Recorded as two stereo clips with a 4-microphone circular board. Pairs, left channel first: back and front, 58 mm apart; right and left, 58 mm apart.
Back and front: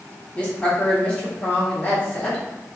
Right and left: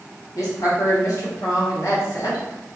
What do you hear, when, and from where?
0.3 s a woman speaking: 110° right, 1.1 m